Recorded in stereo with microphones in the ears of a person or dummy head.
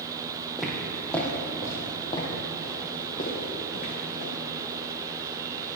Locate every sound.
0.6 s footsteps: centre (ahead or behind), 2.5 m; by 4.3 s 60° left (ahead or behind), 3.5 m